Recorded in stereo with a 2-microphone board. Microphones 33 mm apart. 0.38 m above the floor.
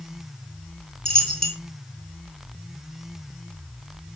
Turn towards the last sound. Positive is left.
turn(degrees=20)  # may be behind; listen again after turning